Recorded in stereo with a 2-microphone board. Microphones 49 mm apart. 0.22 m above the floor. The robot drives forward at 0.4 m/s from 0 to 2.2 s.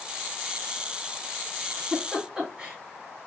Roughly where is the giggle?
Centre.